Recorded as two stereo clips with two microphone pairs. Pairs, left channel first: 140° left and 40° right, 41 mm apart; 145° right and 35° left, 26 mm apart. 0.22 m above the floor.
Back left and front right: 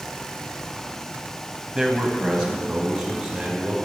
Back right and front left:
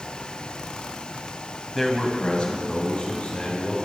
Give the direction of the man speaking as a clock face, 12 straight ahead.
2 o'clock.